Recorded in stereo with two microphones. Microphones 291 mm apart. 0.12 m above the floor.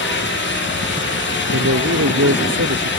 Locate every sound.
1.5 s a man speaking: 55° right (ahead or behind)